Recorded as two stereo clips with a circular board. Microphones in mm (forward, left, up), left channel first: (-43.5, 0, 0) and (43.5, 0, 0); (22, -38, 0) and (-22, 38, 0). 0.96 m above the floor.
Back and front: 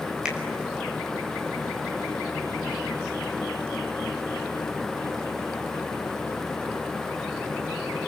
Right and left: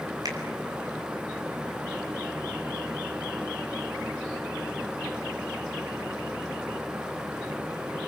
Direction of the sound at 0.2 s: 80° left.